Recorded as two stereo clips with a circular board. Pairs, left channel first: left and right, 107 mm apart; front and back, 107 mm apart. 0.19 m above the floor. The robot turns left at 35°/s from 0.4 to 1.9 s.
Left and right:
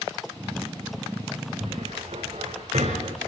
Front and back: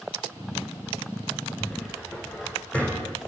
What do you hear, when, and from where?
1.6 s a cupboard door: 70° right, 8 m; by 3.1 s 80° right, 8 m